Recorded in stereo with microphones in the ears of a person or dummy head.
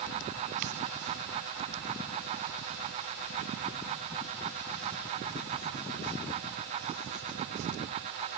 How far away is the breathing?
No breathing in this recording.